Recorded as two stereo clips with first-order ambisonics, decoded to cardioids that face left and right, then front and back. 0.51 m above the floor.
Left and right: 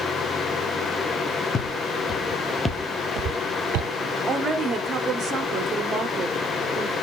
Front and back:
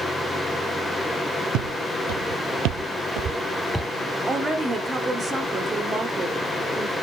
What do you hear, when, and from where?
1.5 s footsteps: 150° left, 2 m; by 3.9 s 80° right, 1.0 m
4.3 s a woman speaking: 120° right, 0.7 m